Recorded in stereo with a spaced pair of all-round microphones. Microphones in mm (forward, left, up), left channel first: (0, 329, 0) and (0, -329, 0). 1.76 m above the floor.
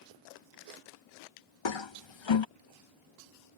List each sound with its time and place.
1.6 s a toilet flushing: 45° left (ahead or behind)